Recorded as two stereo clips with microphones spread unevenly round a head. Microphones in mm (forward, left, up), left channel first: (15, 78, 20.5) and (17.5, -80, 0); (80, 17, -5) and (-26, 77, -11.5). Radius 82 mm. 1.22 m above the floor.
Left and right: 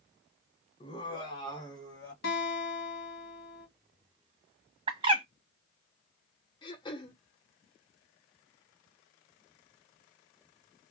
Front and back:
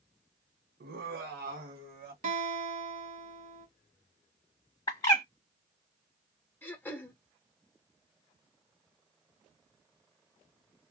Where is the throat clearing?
40° left, 0.8 m.